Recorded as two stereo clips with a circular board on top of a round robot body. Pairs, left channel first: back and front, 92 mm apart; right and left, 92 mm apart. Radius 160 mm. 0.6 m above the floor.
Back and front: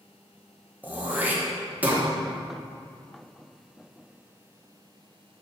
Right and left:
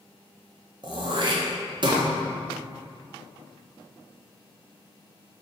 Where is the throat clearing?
70° left, 1.6 m.